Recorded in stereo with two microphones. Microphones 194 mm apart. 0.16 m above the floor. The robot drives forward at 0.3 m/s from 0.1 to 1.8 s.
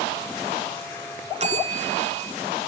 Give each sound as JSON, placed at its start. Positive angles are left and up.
{"t": 1.4, "sound": "a bell", "side_deg": -35, "distance_m": 0.9}